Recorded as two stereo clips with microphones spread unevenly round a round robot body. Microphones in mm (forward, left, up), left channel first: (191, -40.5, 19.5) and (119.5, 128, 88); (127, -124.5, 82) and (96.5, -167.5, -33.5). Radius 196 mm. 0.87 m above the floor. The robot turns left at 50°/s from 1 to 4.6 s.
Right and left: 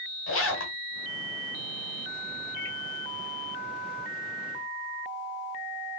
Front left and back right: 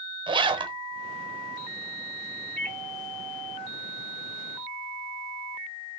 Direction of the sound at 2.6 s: 45° right.